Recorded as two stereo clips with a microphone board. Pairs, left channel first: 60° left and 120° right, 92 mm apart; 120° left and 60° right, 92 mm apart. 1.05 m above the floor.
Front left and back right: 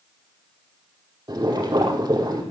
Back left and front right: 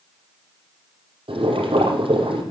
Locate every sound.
1.3 s boiling: 80° right, 5 m